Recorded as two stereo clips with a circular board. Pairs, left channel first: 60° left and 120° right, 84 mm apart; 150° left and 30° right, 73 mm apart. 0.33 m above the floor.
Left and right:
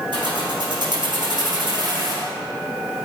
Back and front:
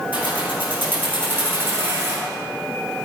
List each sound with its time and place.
0.1 s keys jangling: 100° right, 5.5 m; by 2.3 s 85° right, 4.5 m